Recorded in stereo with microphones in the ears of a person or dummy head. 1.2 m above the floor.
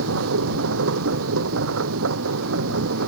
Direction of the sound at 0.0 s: 80° right.